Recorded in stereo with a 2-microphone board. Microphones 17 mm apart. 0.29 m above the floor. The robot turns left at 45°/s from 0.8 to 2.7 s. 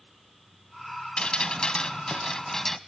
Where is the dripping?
100° left, 0.8 m; by 2.8 s 30° left, 0.8 m.